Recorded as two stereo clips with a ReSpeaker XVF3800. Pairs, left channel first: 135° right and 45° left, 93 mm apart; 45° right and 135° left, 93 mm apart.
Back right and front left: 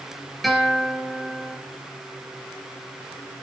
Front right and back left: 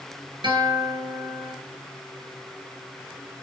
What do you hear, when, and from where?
0.4 s a guitar: 135° left, 3 m